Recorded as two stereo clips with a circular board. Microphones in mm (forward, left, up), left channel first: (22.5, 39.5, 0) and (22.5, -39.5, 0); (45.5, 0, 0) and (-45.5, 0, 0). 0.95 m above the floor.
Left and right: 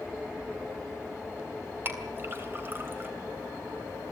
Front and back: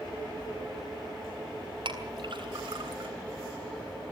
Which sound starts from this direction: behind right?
A clink, at 1.9 s.